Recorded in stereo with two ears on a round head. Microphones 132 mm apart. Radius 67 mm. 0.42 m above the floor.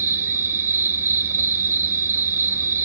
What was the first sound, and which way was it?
An insect, 15° right (ahead or behind).